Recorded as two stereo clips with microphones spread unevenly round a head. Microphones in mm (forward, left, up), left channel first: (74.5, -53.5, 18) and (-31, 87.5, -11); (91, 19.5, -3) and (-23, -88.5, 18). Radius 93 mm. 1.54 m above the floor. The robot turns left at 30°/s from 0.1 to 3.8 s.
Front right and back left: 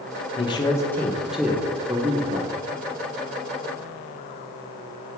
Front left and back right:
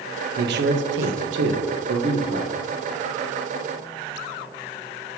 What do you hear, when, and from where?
0.4 s a man speaking: 120° right, 0.9 m; by 2.6 s 175° left, 0.9 m